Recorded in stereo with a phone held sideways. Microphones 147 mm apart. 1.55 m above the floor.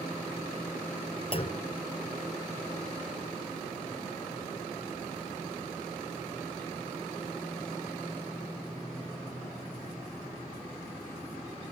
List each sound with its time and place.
1.3 s a clunk: 40° left (ahead or behind), 0.6 m